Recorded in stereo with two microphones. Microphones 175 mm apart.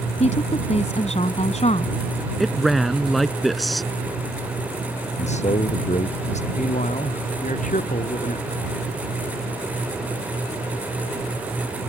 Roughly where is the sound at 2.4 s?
Centre.